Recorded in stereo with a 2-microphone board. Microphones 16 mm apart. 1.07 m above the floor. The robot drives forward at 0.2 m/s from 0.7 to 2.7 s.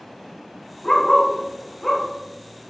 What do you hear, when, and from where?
0.8 s a dog barking: 40° left (ahead or behind), 0.9 m; by 2.7 s 35° left (ahead or behind), 1.0 m